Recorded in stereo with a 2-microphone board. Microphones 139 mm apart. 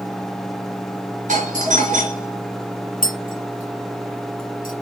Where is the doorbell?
60° right (ahead or behind), 3.5 m.